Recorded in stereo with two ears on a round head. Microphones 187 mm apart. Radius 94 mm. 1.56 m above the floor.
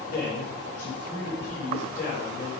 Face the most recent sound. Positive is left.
turn(degrees=40)  # may be behind; listen again after turning